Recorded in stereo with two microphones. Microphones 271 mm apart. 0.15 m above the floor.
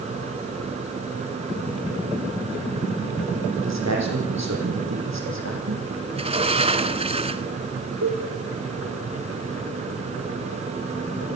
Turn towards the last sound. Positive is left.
turn(degrees=-75)  # may be behind; listen again after turning